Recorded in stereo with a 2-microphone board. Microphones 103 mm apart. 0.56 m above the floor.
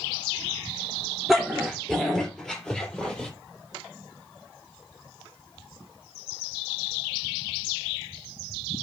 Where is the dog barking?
Centre (ahead or behind), 3.5 m; by 3.3 s 10° left (ahead or behind), 5.5 m.